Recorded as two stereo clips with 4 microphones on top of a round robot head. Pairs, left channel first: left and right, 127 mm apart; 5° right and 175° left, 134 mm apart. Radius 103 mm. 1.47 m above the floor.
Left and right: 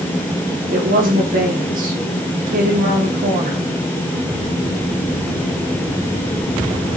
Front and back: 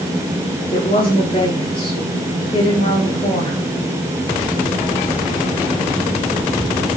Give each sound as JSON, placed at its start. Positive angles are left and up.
{"t": 0.7, "sound": "a woman speaking", "azimuth_deg": -70, "distance_m": 4.5}